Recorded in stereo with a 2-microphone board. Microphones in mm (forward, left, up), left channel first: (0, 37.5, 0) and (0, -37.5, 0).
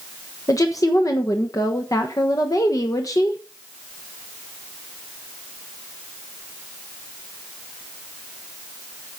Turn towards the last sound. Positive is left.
turn(degrees=50)  # may be behind; listen again after turning